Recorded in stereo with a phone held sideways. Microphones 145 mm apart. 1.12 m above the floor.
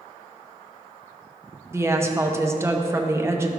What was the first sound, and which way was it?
A woman speaking, 20° right (ahead or behind).